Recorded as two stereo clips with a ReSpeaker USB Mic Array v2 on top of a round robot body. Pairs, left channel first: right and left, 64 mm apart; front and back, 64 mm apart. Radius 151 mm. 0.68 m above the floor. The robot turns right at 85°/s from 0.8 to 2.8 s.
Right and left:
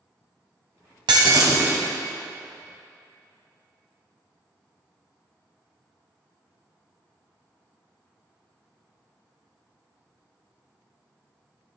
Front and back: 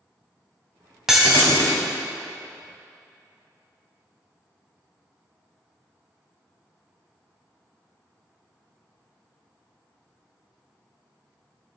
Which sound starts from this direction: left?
Breaking glass, at 1.1 s.